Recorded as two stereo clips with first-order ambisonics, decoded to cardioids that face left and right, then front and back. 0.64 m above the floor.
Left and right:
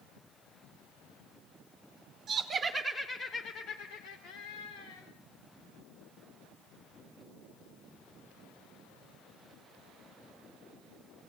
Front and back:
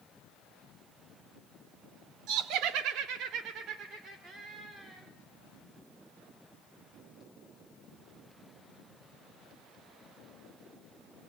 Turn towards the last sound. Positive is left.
turn(degrees=105)